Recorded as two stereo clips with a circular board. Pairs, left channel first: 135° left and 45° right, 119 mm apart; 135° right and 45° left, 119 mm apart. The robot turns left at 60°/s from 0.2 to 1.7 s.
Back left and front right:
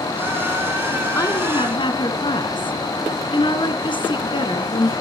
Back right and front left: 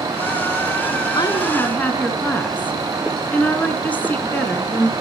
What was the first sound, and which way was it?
A woman speaking, 170° right.